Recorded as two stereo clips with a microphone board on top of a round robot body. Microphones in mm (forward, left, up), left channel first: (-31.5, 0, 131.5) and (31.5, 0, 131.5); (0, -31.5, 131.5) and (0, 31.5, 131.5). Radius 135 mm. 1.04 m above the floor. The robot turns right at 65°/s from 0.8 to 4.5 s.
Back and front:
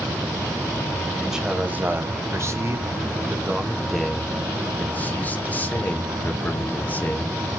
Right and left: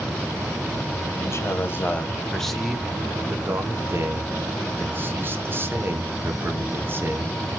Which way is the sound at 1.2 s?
90° right.